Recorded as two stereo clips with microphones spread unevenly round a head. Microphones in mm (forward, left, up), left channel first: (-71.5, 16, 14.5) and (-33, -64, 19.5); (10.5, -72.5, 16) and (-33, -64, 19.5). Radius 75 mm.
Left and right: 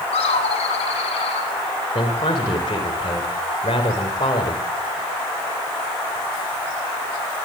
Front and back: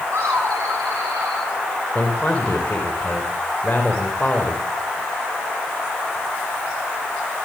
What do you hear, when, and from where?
0.1 s laughter: 105° left, 7 m; by 1.5 s 110° left, 8 m
1.9 s a man speaking: 65° left, 4 m